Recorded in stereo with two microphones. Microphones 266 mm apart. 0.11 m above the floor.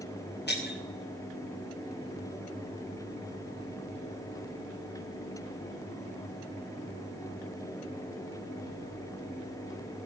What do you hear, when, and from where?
0.5 s breaking glass: 40° left (ahead or behind), 5 m